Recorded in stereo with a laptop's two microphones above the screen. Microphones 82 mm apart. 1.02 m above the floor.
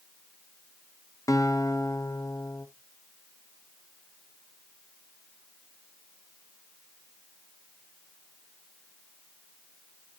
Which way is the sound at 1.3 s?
40° left (ahead or behind).